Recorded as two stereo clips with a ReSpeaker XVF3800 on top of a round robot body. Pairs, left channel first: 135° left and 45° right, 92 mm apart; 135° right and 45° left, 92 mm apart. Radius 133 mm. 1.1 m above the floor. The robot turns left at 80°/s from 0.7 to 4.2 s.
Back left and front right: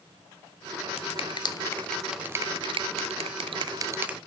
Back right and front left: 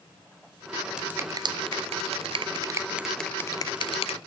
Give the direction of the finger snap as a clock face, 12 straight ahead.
8 o'clock.